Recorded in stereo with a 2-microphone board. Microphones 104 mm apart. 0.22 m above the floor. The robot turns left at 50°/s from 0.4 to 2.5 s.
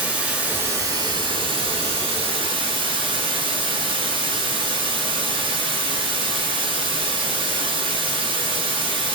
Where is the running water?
15° right, 1.8 m; by 9.2 s 120° right, 1.8 m.